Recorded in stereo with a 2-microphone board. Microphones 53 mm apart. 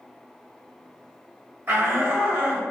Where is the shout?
40° right (ahead or behind), 2.0 m.